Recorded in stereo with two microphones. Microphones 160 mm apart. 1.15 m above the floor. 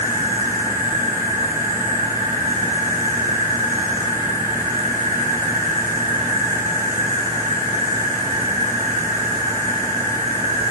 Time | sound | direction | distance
0.0 | an insect | 45° right (ahead or behind) | 1.6 m